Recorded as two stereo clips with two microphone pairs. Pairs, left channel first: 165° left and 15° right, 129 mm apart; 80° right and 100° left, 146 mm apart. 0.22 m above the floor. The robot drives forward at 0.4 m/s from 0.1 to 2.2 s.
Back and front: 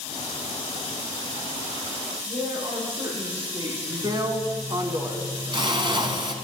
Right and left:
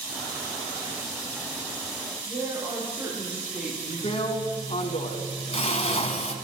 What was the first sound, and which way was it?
A woman speaking, 25° left.